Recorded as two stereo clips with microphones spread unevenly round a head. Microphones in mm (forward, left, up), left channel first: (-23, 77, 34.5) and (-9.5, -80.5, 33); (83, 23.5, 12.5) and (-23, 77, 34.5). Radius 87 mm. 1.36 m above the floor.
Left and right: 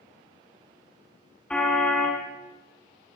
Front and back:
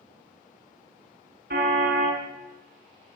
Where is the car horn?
Straight behind, 5.5 m.